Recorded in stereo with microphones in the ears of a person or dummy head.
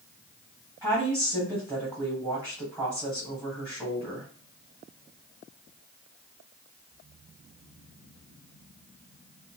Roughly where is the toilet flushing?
I don't hear a toilet flushing.